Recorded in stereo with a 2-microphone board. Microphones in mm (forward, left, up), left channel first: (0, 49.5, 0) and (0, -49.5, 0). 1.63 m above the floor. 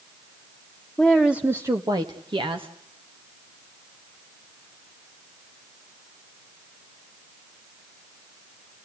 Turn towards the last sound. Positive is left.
turn(degrees=-65)  # may be behind; listen again after turning